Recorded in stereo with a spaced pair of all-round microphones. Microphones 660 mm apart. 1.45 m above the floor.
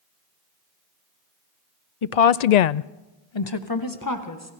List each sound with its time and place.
2.0 s a woman speaking: 50° left (ahead or behind), 0.7 m; by 4.5 s 25° left (ahead or behind), 1.6 m